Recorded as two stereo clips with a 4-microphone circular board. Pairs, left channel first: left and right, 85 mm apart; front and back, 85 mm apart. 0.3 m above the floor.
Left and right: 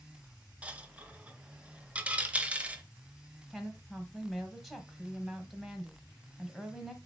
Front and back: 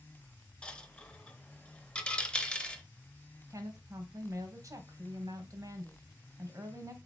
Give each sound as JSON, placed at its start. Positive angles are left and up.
{"t": 0.6, "sound": "a dropped coin", "azimuth_deg": -55, "distance_m": 0.5}
{"t": 3.5, "sound": "a woman speaking", "azimuth_deg": -175, "distance_m": 1.1}